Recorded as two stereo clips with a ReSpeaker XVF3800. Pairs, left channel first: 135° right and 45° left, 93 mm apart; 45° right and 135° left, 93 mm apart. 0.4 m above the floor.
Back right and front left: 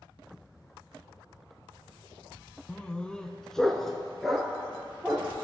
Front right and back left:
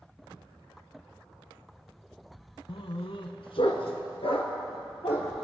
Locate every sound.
2.7 s a dog barking: 60° right, 0.6 m; by 5.3 s 45° right, 2 m